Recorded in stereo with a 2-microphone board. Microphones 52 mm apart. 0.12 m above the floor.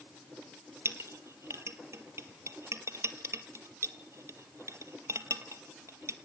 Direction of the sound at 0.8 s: 65° right (ahead or behind).